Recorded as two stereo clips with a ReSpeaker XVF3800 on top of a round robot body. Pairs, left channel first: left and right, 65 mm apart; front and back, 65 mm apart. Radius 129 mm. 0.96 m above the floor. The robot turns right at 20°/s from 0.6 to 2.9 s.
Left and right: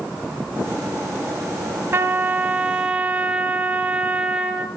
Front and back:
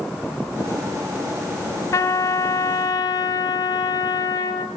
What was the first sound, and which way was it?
A trumpet, 40° right.